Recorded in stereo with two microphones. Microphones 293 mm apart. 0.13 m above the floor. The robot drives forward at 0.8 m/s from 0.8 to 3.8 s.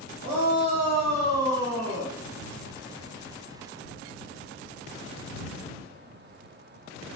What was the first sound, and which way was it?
A shout, 10° right (ahead or behind).